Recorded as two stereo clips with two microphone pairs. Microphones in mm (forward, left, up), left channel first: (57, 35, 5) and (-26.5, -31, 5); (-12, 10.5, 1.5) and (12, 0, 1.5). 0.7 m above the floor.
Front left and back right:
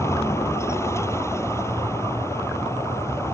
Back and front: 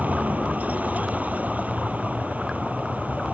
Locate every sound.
0.0 s a vehicle: 25° right